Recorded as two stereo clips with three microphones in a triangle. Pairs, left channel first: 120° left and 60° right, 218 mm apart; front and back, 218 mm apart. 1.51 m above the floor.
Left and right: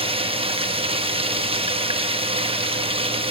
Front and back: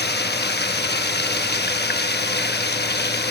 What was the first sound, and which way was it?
Running water, 5° right.